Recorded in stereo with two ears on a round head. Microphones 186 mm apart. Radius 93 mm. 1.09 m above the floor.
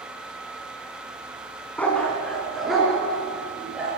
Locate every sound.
1.8 s a dog barking: 10° left (ahead or behind), 2.5 m; by 3.9 s 5° right (ahead or behind), 4.5 m